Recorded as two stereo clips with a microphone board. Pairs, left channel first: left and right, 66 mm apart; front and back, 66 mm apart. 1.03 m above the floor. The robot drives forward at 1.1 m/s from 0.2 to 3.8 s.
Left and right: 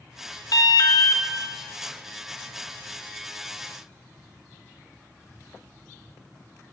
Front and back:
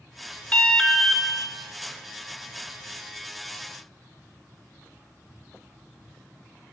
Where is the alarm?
65° left, 1.7 m; by 1.2 s 95° left, 1.5 m.